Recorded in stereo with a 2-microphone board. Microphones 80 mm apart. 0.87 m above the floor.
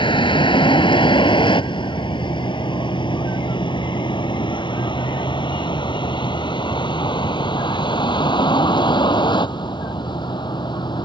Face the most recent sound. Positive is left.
turn(degrees=65)  # may be behind; listen again after turning